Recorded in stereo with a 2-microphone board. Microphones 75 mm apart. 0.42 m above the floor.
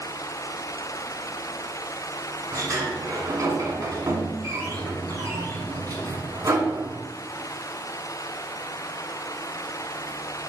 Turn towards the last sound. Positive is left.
turn(degrees=-45)  # may be behind; listen again after turning